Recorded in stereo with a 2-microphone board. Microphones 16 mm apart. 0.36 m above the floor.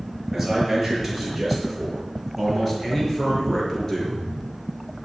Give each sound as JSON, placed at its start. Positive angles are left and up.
{"t": 0.3, "sound": "a man speaking", "side_deg": 0, "distance_m": 7.0}